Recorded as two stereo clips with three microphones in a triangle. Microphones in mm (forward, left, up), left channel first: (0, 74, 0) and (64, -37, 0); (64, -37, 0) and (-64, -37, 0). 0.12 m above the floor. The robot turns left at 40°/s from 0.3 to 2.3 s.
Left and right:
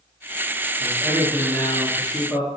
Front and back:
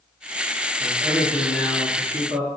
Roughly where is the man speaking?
Left.